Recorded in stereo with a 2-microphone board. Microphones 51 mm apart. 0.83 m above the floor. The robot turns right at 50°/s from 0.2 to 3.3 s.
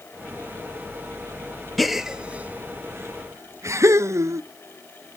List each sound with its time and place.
1.8 s a gasp: centre (ahead or behind), 0.6 m; by 4.4 s 65° right (ahead or behind), 0.6 m